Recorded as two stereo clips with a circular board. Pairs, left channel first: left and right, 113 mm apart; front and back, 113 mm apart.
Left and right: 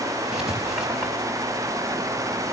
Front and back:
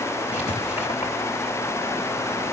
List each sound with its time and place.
0.3 s writing: 5° right, 4 m